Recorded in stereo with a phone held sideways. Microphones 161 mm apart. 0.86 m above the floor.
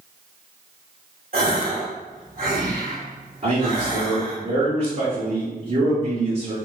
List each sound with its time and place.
1.3 s a gasp: 60° right (ahead or behind), 1.8 m
3.4 s a man speaking: 50° right (ahead or behind), 1.7 m